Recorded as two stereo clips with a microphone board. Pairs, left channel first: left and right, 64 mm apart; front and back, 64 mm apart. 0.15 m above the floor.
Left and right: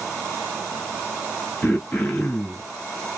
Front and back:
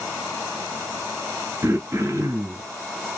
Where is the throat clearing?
145° left, 0.8 m.